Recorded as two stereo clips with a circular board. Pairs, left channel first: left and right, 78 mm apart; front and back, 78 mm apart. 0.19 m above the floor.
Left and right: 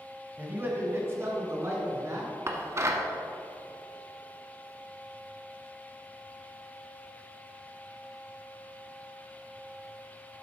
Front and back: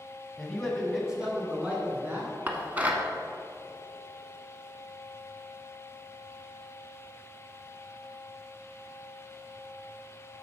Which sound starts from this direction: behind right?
Dishes clattering, at 2.5 s.